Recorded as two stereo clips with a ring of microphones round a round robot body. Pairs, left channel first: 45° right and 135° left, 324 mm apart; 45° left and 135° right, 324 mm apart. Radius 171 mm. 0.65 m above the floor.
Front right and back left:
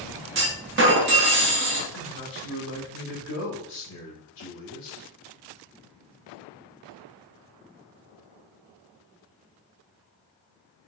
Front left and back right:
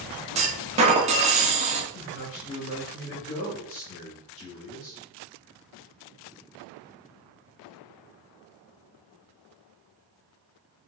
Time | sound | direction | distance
0.3 | a clunk | 165° left | 1.1 m
1.9 | a man speaking | straight ahead | 1.8 m